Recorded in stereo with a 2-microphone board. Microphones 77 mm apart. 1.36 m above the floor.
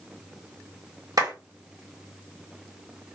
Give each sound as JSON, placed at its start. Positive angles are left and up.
{"t": 1.2, "sound": "a clap", "side_deg": -55, "distance_m": 1.4}